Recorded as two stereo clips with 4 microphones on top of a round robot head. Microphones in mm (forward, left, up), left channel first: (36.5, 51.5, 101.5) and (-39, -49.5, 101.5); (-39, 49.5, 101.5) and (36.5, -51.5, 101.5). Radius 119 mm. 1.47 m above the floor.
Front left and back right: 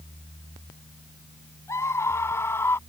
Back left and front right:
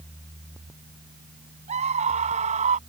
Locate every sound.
1.7 s a scream: 15° right; by 2.8 s 20° right